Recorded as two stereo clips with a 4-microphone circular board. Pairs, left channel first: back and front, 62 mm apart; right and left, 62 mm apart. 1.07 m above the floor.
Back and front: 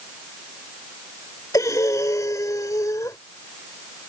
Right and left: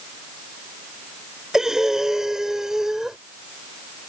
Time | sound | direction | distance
1.5 | breathing | 170° left | ?